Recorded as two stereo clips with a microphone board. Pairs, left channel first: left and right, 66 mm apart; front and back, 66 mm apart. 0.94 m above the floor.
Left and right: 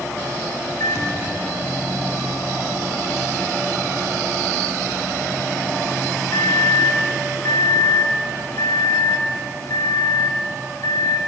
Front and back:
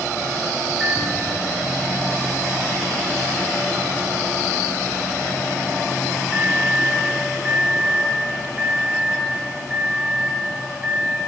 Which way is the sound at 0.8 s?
100° left.